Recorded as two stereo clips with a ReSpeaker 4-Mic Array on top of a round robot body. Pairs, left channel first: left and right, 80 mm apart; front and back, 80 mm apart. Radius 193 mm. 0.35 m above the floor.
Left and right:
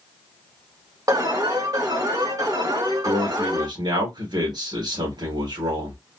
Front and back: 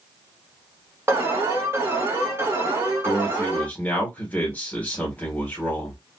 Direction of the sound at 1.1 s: 125° right.